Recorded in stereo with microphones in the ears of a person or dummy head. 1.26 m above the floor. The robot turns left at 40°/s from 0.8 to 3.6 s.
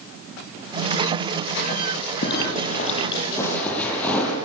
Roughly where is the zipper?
Ahead left.